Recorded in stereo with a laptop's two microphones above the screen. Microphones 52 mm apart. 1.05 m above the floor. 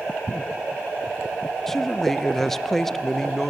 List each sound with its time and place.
1.7 s a man speaking: 5° left (ahead or behind), 0.6 m